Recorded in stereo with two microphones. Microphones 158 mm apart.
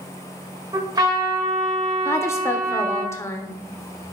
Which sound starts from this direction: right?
A trumpet, at 0.7 s.